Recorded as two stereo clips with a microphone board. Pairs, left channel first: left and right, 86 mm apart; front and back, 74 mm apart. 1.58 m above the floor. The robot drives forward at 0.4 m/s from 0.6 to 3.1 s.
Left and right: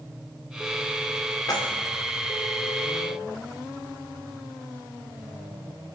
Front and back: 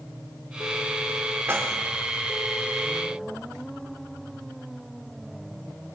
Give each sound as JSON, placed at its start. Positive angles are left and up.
{"t": 1.5, "sound": "keys jangling", "azimuth_deg": 125, "distance_m": 2.5}